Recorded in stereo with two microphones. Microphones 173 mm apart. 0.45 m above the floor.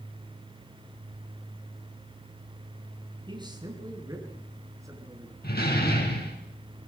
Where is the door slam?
65° left (ahead or behind), 4.5 m.